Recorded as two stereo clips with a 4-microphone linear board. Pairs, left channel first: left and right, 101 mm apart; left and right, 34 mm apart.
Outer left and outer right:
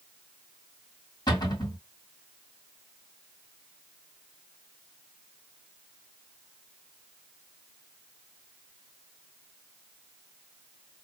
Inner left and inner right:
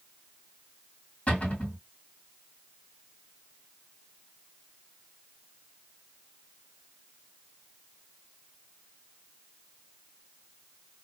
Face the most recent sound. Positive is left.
turn(degrees=45)  # may be behind; listen again after turning